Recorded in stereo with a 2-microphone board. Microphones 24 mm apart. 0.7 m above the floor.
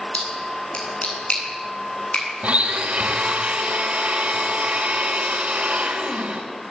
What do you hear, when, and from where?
0.1 s a splash: 60° left (ahead or behind), 9.5 m
2.4 s a blender: 75° right (ahead or behind), 4 m